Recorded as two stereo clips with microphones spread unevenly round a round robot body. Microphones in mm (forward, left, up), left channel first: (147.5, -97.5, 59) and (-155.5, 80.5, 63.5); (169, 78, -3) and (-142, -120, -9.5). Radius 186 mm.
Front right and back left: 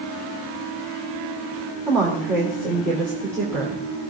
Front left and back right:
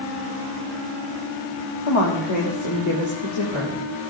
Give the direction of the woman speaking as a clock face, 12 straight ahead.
10 o'clock.